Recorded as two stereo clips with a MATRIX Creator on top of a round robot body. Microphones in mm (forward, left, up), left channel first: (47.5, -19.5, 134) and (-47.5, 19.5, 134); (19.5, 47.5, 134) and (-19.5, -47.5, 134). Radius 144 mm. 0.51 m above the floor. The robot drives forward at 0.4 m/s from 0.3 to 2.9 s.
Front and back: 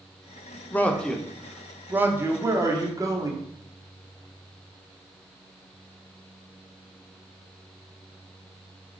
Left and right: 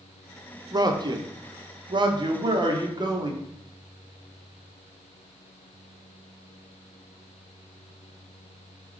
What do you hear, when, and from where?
0.7 s a man speaking: 85° right, 0.8 m; by 3.3 s 150° right, 1.2 m